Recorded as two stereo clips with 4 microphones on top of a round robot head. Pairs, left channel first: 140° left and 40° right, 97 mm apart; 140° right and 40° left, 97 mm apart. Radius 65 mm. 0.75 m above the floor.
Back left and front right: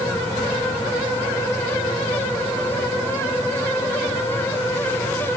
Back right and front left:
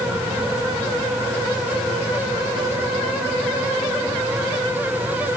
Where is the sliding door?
No sliding door in this recording.